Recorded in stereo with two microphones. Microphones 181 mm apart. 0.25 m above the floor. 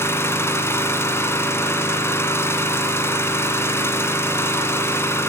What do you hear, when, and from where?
0.0 s an engine running: 15° left (ahead or behind), 1.4 m